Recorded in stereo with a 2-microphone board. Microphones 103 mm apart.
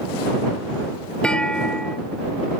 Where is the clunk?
10° left (ahead or behind).